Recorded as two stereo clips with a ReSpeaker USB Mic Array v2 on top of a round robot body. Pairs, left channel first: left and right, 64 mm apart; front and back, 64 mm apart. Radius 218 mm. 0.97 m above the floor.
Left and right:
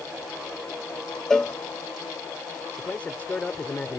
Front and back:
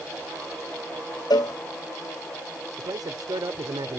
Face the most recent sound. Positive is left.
turn(degrees=160)